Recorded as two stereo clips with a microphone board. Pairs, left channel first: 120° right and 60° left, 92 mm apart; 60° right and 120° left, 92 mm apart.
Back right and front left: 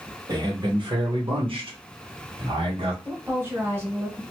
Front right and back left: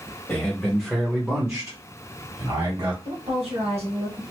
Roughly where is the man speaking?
Ahead.